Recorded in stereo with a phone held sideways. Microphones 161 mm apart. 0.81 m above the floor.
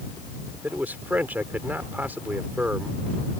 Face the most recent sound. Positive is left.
turn(degrees=-10)  # may be behind; listen again after turning